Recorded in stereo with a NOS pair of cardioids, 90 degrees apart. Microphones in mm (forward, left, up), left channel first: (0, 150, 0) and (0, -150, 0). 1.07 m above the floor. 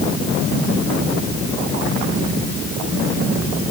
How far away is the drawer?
I don't hear a drawer.